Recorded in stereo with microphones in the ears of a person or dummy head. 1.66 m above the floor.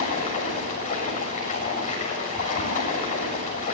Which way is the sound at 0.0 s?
40° left (ahead or behind).